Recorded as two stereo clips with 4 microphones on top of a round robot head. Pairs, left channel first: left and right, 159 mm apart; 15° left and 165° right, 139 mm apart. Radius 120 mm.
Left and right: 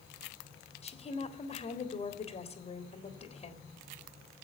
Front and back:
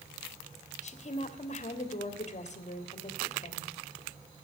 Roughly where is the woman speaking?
Ahead left.